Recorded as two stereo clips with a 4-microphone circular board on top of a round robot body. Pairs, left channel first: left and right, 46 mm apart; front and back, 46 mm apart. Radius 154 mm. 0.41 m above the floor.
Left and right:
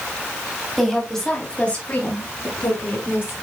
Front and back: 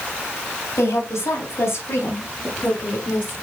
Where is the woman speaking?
Straight ahead, 3.5 m; by 3.3 s 50° left, 5 m.